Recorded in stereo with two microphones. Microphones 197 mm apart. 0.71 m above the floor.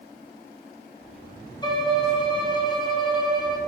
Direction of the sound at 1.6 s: 25° left (ahead or behind).